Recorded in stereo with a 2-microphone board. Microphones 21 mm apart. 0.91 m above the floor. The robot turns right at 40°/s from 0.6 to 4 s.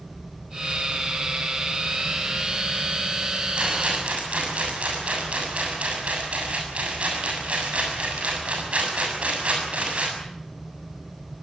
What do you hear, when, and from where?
3.6 s a rattle: 50° right (ahead or behind), 7 m; by 10.1 s 70° right (ahead or behind), 7 m